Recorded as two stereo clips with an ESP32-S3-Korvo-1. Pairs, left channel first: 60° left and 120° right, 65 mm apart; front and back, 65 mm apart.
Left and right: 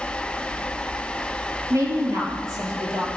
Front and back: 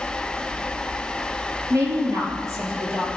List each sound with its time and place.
1.7 s a woman speaking: 140° right, 4 m